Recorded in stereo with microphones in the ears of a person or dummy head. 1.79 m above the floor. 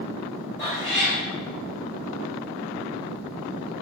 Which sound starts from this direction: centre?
A cat meowing, at 0.6 s.